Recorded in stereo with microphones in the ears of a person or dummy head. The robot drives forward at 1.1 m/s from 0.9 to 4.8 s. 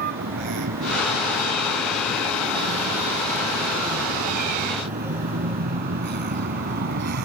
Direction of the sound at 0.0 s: 55° right (ahead or behind).